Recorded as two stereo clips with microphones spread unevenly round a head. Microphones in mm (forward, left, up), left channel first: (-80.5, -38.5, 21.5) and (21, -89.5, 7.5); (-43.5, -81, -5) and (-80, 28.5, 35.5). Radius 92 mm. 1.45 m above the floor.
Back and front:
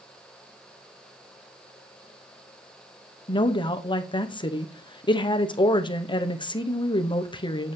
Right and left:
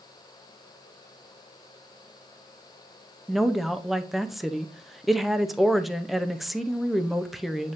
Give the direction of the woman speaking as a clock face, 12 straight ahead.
5 o'clock.